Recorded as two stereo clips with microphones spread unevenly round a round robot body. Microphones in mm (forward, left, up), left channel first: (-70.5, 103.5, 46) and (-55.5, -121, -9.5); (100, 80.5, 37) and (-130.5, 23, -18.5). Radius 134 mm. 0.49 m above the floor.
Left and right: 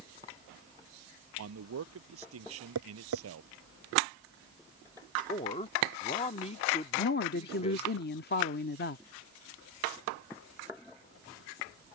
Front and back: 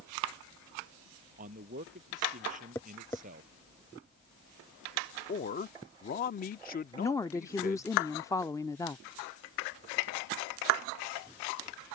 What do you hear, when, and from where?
1.4 s a man speaking: 105° right
2.8 s tapping: 65° right
5.3 s a man speaking: 35° left
7.0 s a woman speaking: 105° left